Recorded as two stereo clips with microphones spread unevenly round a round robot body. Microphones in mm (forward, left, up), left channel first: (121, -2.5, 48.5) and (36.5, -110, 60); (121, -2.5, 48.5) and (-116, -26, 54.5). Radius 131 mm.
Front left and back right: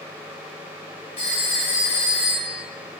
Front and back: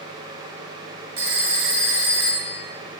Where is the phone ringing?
150° left, 0.9 m.